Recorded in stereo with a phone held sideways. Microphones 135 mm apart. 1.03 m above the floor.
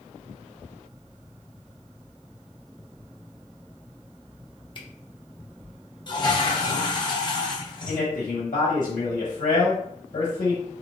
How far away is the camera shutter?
About 0.7 m.